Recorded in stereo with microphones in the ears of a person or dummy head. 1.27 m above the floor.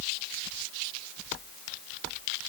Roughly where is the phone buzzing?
I don't hear a phone buzzing.